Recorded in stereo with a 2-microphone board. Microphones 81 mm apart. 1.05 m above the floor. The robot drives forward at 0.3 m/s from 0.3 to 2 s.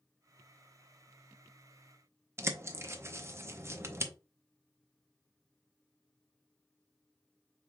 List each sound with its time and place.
2.4 s a bird: 35° right (ahead or behind), 0.6 m